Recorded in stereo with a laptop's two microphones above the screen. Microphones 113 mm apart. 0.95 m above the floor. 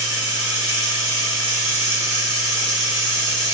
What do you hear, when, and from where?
0.0 s running water: 20° right (ahead or behind), 1.8 m